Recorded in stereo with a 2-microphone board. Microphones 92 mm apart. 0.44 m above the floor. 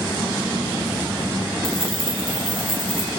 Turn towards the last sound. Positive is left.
turn(degrees=-75)  # may be behind; listen again after turning